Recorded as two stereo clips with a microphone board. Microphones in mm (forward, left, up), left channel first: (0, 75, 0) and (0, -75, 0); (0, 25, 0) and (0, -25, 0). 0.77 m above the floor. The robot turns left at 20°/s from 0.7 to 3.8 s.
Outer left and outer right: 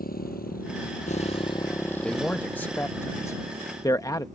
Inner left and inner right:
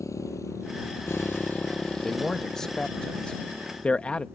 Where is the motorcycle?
85° left; by 4.3 s 55° right (ahead or behind).